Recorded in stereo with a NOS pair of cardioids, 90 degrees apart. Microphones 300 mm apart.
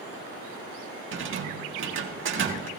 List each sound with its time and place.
1.1 s a rattle: 40° right, 1.9 m